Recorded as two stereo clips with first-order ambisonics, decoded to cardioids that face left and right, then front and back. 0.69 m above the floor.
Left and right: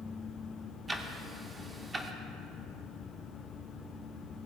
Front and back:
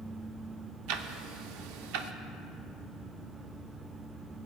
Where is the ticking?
165° right, 0.6 m.